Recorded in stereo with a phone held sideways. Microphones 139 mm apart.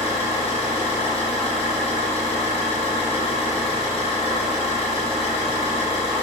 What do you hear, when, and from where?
0.0 s an engine running: 45° left (ahead or behind), 1.1 m